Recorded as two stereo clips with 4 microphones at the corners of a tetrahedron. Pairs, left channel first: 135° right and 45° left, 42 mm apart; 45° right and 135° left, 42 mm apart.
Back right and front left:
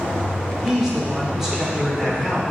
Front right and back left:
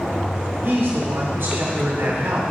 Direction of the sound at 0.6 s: 125° left.